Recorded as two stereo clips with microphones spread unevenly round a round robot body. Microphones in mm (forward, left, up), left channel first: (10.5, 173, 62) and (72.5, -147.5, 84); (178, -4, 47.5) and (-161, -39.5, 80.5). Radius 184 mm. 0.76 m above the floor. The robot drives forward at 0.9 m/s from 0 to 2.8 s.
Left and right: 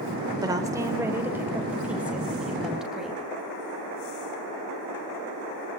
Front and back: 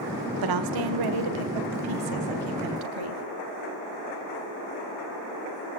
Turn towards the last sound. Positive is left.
turn(degrees=-170)